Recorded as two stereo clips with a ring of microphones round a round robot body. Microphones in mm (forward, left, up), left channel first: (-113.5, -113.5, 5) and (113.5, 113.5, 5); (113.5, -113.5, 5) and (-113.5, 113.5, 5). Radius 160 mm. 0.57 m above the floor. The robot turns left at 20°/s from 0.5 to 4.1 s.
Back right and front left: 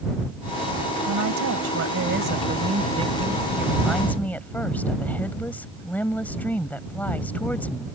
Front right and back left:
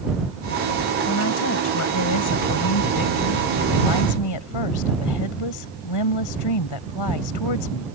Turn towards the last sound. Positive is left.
turn(degrees=-50)